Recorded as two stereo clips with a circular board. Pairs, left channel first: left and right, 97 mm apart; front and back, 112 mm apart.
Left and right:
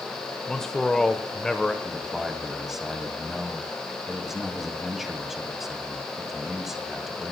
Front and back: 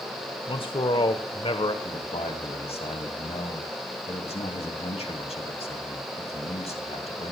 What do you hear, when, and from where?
0.5 s a man speaking: 5° left, 1.3 m
1.8 s a man speaking: 5° right, 2.5 m